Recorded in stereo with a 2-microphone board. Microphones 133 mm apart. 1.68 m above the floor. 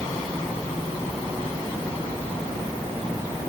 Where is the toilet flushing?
No toilet flushing in this recording.